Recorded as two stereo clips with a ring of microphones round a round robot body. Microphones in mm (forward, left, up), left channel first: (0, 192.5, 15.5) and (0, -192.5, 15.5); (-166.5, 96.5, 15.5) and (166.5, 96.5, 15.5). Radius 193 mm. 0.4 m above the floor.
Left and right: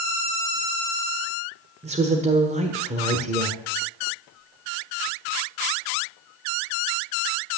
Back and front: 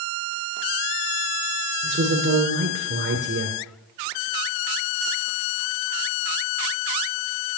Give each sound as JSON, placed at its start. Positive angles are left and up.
{"t": 1.8, "sound": "a woman speaking", "azimuth_deg": -30, "distance_m": 1.3}